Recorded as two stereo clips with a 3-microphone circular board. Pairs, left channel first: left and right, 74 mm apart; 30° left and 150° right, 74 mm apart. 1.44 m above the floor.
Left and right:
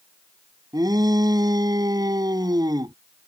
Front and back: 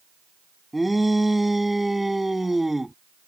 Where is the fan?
I don't hear a fan.